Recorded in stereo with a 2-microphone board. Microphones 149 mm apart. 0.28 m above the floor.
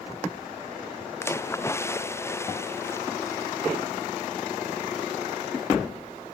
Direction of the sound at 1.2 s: 15° left (ahead or behind).